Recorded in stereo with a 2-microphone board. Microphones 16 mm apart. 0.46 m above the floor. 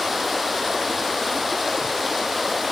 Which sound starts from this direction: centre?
Running water, at 0.0 s.